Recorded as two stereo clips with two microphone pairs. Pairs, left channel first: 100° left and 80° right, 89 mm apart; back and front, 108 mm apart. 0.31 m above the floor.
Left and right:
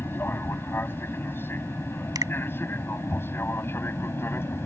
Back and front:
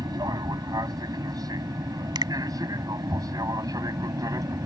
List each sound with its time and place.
0.0 s an aircraft: 45° left
2.1 s a finger snap: 40° right